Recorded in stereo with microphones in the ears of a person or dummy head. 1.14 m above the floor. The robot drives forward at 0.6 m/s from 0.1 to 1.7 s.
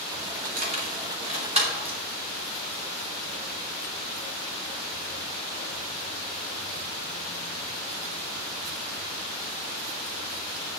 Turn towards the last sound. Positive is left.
turn(degrees=-30)  # may be behind; listen again after turning